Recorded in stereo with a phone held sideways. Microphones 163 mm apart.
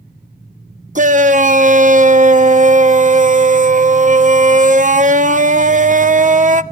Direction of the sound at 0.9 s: 50° right (ahead or behind).